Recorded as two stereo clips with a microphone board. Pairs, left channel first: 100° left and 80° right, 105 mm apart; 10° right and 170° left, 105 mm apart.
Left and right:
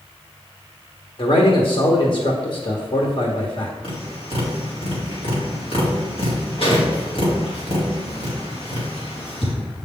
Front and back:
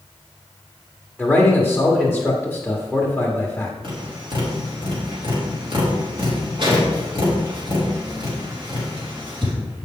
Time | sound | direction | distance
1.2 | a man speaking | 75° left | 1.2 m
3.8 | tapping | 130° left | 3 m